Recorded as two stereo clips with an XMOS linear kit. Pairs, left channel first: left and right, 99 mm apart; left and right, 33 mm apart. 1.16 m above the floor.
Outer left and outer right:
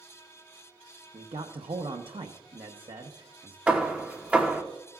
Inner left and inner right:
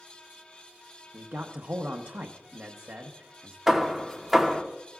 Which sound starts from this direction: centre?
Hammering, at 3.7 s.